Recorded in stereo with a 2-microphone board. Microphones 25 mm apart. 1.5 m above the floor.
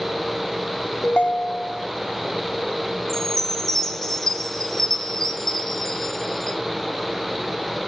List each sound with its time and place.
1.0 s a ringtone: 50° left (ahead or behind), 0.7 m
3.1 s a chime: 20° left (ahead or behind), 0.9 m